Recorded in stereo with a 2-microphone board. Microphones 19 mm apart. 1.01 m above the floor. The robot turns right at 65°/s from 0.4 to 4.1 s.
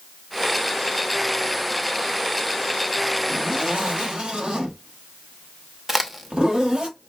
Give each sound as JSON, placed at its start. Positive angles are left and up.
{"t": 3.3, "sound": "a zipper", "azimuth_deg": -110, "distance_m": 1.4}
{"t": 5.9, "sound": "a crack", "side_deg": -15, "distance_m": 0.7}